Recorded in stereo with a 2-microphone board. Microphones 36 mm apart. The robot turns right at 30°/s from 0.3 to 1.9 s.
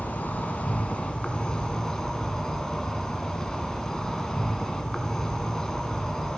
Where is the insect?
115° left, 1.0 m; by 6.4 s 165° left, 1.0 m.